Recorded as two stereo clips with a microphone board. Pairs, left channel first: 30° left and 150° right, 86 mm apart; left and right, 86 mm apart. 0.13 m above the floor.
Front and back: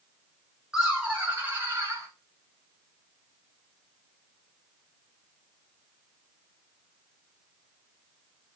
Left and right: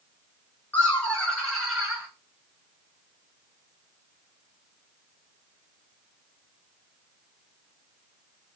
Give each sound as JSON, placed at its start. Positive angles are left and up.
{"t": 0.7, "sound": "laughter", "azimuth_deg": 135, "distance_m": 1.3}